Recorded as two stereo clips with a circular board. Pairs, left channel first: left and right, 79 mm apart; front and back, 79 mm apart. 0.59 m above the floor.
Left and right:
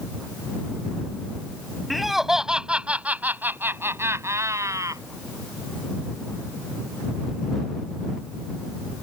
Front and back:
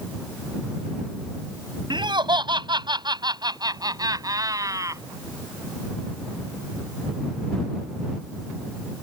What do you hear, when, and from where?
1.9 s laughter: straight behind; by 5.0 s 135° right